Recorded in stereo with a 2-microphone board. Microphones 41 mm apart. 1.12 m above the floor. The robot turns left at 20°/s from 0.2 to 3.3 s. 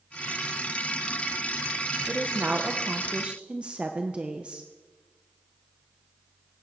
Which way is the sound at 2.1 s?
40° right (ahead or behind).